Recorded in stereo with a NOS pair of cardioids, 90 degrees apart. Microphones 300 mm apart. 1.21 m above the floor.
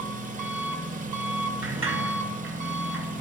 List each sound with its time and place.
0.0 s an engine running: 25° right, 1.0 m
1.6 s a sliding door: 45° right, 1.7 m